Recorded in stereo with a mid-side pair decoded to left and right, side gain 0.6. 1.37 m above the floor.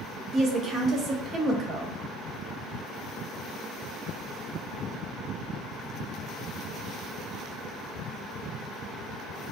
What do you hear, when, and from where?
0.3 s a woman speaking: 40° right, 0.9 m